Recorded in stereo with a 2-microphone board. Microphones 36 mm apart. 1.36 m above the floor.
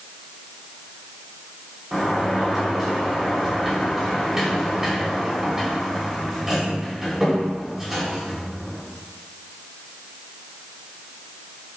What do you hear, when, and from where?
1.9 s a sliding door: 10° right (ahead or behind), 3.5 m